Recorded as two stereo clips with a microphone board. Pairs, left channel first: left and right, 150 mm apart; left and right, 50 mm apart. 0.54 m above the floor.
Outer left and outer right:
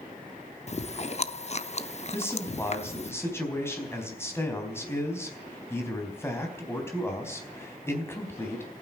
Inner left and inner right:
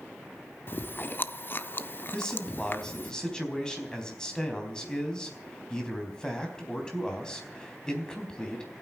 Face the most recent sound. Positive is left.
turn(degrees=15)  # may be behind; listen again after turning